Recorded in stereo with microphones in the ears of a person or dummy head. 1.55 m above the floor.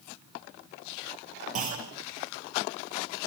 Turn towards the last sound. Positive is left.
turn(degrees=-35)  # may be behind; listen again after turning